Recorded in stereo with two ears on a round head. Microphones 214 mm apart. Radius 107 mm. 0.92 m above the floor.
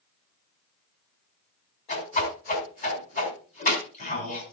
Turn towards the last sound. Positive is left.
turn(degrees=35)  # may be behind; listen again after turning